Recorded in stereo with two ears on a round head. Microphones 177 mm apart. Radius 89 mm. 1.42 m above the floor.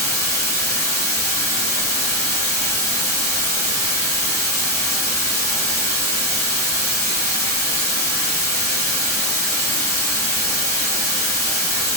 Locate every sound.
0.0 s running water: 55° left (ahead or behind), 2.5 m